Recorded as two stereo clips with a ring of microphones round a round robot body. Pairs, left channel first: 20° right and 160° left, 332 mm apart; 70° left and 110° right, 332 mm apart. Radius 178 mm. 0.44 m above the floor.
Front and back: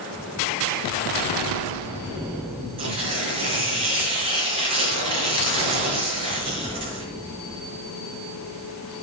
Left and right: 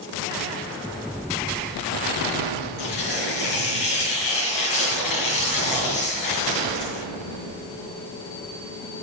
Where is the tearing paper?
85° left, 5.5 m.